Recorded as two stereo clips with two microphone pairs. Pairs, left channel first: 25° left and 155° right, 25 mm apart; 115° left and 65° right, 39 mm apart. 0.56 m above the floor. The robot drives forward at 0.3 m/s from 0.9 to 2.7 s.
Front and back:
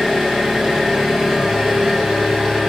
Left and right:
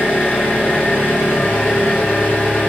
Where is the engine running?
140° left, 1.6 m; by 2.7 s 150° left, 2 m.